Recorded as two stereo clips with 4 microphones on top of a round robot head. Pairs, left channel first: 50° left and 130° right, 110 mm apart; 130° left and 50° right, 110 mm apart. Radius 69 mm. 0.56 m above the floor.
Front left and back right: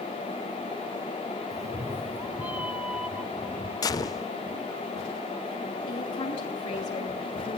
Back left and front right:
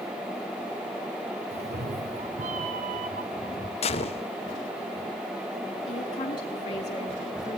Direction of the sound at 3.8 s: 105° left.